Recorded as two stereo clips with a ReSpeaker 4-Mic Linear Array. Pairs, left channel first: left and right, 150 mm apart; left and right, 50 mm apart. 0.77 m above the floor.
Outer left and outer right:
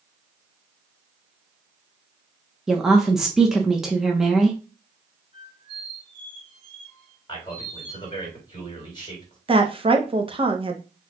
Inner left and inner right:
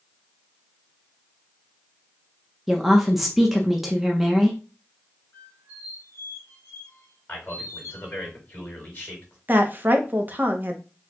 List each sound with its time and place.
2.7 s a woman speaking: 5° right (ahead or behind), 0.9 m
5.3 s a squeak: 55° left (ahead or behind), 2 m
7.3 s a man speaking: 30° left (ahead or behind), 3.5 m
9.5 s a woman speaking: 35° right (ahead or behind), 0.9 m